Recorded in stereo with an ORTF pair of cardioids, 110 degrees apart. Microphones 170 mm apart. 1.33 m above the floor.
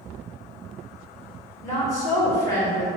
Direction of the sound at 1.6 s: 15° left.